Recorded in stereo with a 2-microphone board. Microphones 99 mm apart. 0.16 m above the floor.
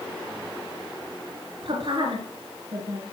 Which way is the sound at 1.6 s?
60° right (ahead or behind).